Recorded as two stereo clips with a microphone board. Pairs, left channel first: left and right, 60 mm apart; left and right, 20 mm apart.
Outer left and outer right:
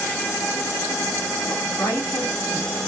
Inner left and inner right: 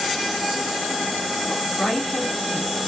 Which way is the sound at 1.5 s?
65° left (ahead or behind).